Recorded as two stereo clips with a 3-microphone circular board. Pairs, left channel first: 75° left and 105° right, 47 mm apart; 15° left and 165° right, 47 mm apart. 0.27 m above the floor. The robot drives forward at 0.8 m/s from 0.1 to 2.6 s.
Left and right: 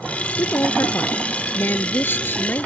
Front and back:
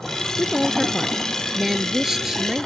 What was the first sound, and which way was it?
A woman speaking, 100° left.